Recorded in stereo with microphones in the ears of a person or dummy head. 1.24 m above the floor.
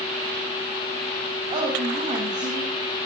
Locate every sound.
1.5 s a woman speaking: 30° right (ahead or behind), 8 m